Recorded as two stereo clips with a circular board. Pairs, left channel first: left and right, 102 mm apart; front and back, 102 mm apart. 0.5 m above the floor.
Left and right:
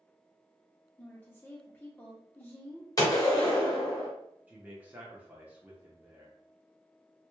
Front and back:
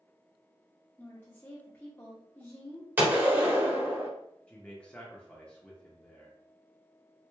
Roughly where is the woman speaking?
Ahead left.